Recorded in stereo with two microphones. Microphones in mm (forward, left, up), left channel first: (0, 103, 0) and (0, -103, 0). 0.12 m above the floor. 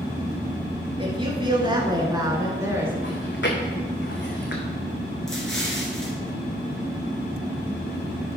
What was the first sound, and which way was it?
A woman speaking, 25° right (ahead or behind).